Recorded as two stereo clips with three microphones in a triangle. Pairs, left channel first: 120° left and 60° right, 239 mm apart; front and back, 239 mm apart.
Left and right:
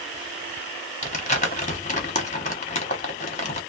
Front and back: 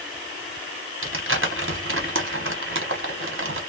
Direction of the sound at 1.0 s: 175° left.